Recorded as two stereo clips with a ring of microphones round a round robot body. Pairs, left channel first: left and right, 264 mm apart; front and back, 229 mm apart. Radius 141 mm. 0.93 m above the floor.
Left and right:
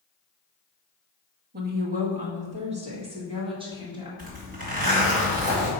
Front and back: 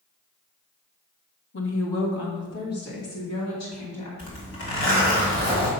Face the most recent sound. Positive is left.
turn(degrees=-30)